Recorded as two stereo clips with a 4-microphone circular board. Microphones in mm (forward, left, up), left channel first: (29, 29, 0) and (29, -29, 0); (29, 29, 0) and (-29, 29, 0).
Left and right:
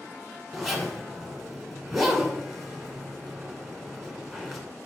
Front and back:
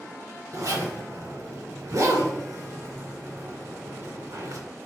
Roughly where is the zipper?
Behind.